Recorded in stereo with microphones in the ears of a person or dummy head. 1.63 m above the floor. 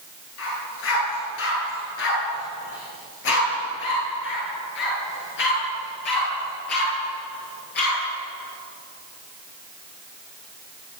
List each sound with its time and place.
0.4 s a dog barking: 80° left, 8.5 m; by 8.0 s 55° left (ahead or behind), 9.5 m